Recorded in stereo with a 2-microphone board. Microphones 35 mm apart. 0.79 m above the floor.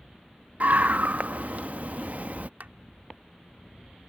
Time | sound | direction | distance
0.6 | a scream | 55° right (ahead or behind) | ?
2.6 | a clap | 65° right (ahead or behind) | ?